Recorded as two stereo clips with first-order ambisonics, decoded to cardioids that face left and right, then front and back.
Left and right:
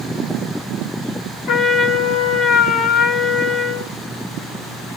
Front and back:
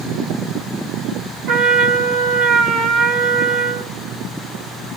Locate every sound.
1.5 s a trumpet: 140° left, 1.7 m